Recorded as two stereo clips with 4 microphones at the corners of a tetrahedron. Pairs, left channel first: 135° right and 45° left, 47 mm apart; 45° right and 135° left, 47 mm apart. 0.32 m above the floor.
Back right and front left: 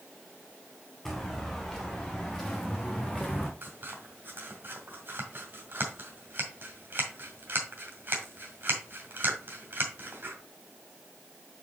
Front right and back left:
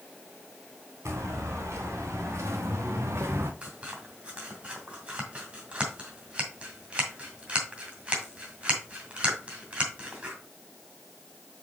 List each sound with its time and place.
1.1 s footsteps: 140° left, 3 m; by 3.5 s 135° left, 1.4 m
3.6 s scissors: 75° left, 1.9 m